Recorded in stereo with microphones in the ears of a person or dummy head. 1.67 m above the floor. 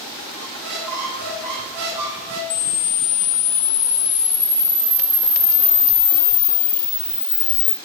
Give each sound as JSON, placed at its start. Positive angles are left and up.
{"t": 0.4, "sound": "a squeak", "side_deg": -55, "distance_m": 1.7}
{"t": 2.5, "sound": "a camera shutter", "side_deg": 45, "distance_m": 0.7}